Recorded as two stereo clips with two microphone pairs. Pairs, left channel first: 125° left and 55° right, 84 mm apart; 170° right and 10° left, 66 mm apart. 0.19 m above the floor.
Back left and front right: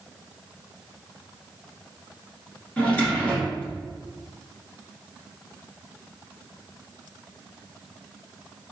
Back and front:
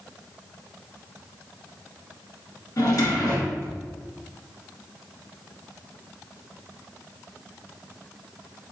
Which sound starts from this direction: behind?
A drawer, at 2.8 s.